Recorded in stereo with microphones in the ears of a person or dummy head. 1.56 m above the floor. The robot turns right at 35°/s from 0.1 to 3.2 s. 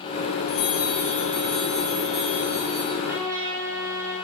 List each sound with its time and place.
0.5 s a bell: 110° left, 4 m; by 2.9 s 165° right, 4 m
3.0 s a trumpet: centre (ahead or behind), 3 m; by 4.2 s 10° right (ahead or behind), 3 m